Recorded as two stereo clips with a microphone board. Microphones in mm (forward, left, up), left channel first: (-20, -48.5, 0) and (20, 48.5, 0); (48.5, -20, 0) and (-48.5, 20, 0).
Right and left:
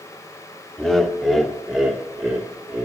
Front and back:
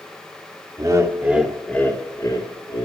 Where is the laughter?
165° left, 1.0 m; by 2.9 s 10° right, 1.3 m.